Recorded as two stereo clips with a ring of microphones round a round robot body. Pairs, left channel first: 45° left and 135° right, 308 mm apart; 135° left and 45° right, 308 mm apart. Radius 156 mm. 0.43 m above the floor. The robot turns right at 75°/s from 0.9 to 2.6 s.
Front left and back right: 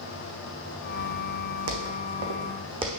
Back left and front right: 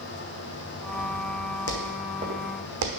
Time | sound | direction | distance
1.7 | footsteps | straight behind | 2 m